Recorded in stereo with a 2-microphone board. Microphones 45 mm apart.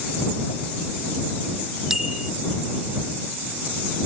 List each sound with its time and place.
1.9 s a bicycle bell: 10° right (ahead or behind)